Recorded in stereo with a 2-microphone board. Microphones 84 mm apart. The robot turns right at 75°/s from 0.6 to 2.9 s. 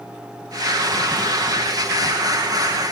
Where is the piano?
No piano in this recording.